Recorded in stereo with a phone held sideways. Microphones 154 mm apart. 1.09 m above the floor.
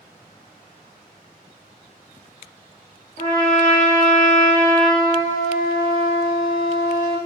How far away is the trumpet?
About 1.5 m.